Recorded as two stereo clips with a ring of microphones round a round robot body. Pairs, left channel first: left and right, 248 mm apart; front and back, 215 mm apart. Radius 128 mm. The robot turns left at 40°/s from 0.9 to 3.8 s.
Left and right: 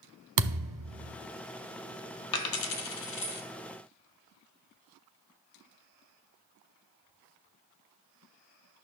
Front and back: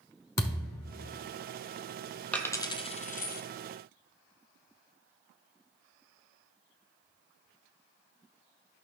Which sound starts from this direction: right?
A thud, at 0.4 s.